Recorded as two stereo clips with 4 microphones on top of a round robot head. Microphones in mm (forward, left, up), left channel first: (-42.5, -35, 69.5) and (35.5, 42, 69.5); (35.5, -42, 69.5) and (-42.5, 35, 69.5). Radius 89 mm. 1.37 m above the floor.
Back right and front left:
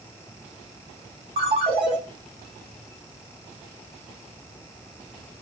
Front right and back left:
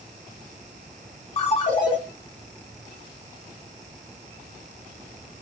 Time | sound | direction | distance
1.4 | a ringtone | straight ahead | 0.8 m